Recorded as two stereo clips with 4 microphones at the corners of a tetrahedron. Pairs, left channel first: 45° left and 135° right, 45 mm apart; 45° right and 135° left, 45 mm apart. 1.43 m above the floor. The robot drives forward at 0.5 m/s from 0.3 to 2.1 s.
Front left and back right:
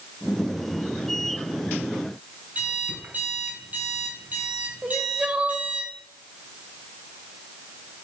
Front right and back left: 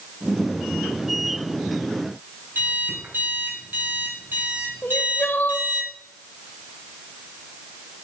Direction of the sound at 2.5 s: 175° left.